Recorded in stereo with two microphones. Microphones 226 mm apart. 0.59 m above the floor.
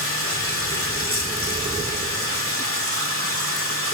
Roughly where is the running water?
Left.